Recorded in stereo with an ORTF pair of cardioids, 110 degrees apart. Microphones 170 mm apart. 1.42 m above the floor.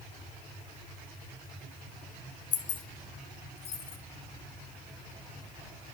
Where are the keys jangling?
50° left, 0.9 m; by 4.0 s 40° left, 1.7 m.